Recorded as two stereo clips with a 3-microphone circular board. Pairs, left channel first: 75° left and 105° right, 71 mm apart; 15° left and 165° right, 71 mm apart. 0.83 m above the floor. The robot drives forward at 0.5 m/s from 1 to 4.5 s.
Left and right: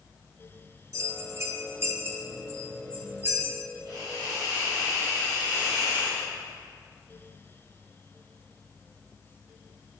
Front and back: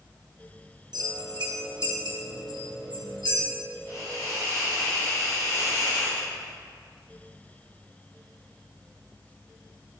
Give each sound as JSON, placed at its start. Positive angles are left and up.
{"t": 0.9, "sound": "a bell", "azimuth_deg": -145, "distance_m": 0.7}
{"t": 3.9, "sound": "a hiss", "azimuth_deg": -120, "distance_m": 2.5}